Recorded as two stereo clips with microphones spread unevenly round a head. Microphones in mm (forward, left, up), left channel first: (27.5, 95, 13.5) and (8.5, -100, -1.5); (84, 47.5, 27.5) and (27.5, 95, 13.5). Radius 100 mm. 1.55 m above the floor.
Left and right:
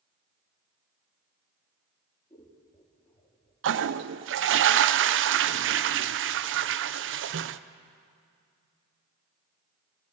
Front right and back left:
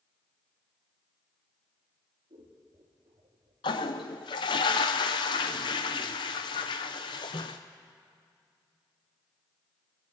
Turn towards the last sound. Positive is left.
turn(degrees=-70)